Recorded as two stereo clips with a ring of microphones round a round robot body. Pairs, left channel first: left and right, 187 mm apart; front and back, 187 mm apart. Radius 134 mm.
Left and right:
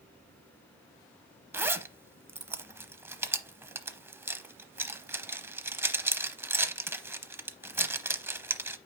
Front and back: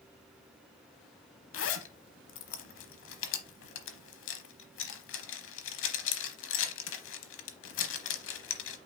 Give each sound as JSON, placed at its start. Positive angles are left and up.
{"t": 1.5, "sound": "a zipper", "azimuth_deg": -15, "distance_m": 0.8}